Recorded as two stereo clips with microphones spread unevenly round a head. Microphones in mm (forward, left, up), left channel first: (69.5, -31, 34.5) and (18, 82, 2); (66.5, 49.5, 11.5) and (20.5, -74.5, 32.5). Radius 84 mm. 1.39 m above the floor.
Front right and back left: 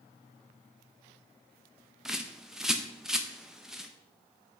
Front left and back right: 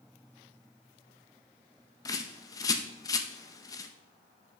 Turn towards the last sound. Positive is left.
turn(degrees=10)